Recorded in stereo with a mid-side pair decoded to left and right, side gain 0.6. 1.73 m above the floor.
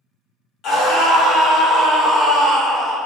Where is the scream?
60° left, 1.7 m; by 3.0 s straight ahead, 1.0 m.